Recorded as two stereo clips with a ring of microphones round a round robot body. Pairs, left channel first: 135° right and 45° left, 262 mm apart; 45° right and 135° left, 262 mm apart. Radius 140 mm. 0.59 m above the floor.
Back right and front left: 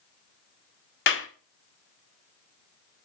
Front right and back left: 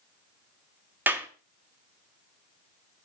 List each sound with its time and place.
1.1 s a clap: 145° right, 1.1 m